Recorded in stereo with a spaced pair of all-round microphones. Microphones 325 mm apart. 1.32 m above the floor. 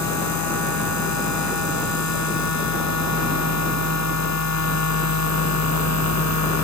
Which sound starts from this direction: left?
A machine running, at 0.0 s.